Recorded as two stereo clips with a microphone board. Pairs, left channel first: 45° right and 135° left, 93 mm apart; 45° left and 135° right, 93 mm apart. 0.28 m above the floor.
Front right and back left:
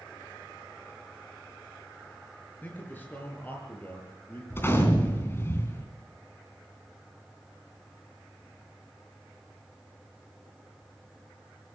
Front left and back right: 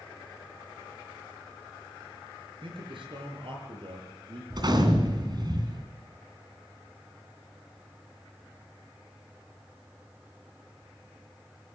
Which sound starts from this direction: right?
A gunshot, at 4.5 s.